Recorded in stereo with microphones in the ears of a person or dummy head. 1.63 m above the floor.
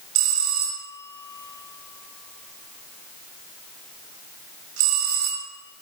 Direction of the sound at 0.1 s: 85° right.